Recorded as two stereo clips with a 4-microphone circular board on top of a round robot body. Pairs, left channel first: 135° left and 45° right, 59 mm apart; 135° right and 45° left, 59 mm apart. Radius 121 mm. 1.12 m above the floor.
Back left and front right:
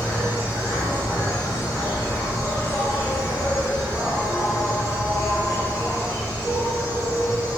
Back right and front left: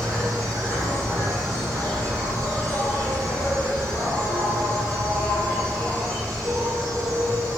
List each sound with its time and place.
0.0 s an insect: 85° left, 2.5 m